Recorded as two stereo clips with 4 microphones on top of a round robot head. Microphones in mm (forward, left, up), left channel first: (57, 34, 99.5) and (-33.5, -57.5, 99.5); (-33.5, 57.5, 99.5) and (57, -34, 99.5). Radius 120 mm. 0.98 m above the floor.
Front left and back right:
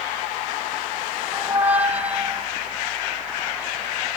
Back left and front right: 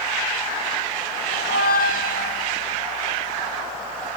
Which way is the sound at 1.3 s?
145° left.